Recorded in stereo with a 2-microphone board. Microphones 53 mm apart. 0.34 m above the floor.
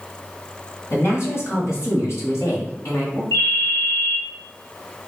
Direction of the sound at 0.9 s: 50° left (ahead or behind).